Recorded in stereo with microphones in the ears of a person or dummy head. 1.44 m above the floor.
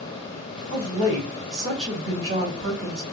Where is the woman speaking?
30° right (ahead or behind), 2 m.